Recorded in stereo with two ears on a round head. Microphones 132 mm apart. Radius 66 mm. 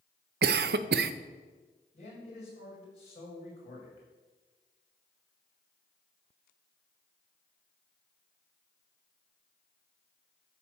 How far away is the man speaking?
About 6 m.